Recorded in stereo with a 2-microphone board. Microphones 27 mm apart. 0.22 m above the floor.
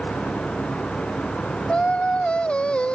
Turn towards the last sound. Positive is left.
turn(degrees=45)  # may be behind; listen again after turning